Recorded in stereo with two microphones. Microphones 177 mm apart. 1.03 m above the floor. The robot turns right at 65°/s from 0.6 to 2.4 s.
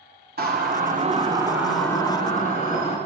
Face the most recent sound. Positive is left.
turn(degrees=40)  # may be behind; listen again after turning